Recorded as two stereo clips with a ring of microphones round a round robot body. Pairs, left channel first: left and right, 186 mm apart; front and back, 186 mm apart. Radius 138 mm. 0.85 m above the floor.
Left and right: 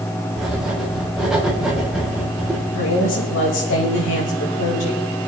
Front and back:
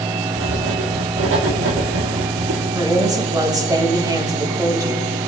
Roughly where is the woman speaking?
Left.